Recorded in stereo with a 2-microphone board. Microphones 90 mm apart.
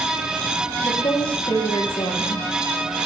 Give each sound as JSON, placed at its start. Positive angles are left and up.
{"t": 0.8, "sound": "a woman speaking", "side_deg": 60, "distance_m": 6.5}